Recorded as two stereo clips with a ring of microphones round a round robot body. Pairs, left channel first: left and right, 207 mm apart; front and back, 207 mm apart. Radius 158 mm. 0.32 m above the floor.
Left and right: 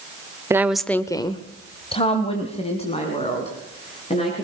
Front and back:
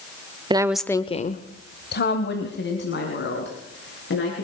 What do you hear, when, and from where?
0.5 s a woman speaking: 150° right, 0.9 m; by 4.5 s 30° left, 5 m